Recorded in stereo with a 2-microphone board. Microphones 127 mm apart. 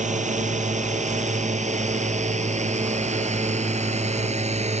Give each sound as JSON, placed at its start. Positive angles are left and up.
{"t": 0.0, "sound": "a drone", "side_deg": -70}